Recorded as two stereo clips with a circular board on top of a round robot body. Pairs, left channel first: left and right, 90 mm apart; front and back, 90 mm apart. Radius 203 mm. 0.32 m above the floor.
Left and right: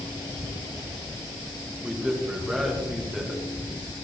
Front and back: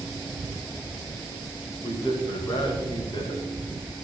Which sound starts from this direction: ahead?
A man speaking, at 1.8 s.